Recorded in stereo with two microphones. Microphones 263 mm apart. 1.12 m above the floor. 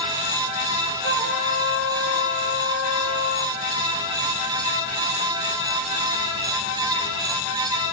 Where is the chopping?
I don't hear chopping.